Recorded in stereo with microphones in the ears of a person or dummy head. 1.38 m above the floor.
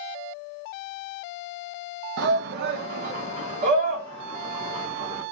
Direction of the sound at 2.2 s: 65° right (ahead or behind).